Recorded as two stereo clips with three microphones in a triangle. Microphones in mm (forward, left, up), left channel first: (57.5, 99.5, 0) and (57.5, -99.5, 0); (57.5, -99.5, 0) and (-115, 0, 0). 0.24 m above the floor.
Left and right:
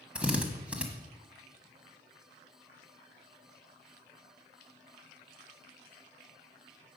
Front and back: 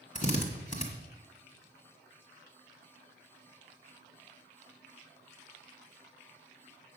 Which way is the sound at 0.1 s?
10° right.